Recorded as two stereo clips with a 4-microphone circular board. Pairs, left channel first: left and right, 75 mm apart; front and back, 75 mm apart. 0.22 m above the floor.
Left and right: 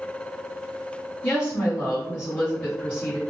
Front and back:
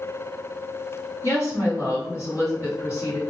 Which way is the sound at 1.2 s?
25° left.